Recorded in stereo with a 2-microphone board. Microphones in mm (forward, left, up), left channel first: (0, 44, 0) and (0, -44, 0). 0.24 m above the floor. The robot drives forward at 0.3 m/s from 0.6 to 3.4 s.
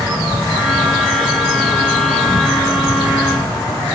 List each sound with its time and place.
0.0 s an insect: 60° left (ahead or behind), 2.5 m; by 4.0 s 80° left, 2.5 m